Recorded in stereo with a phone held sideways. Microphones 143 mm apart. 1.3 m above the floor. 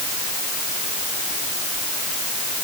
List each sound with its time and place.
Only background noise.